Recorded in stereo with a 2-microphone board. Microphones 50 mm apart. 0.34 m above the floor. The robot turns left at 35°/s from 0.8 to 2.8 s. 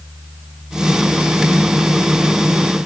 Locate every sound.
Only background noise.